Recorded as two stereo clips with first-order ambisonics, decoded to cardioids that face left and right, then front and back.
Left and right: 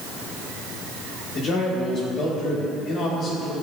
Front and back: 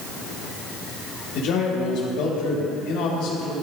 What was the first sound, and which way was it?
A man speaking, 30° left.